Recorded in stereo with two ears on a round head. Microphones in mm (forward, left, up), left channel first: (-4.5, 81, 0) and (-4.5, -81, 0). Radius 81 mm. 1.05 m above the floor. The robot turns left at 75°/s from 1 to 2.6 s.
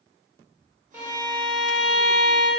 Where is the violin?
10° right, 0.7 m; by 2.5 s 125° right, 0.7 m.